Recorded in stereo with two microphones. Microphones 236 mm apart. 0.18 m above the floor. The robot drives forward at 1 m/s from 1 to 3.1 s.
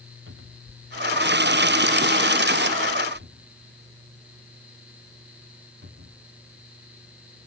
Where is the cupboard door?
60° right (ahead or behind); by 6.7 s 50° right (ahead or behind).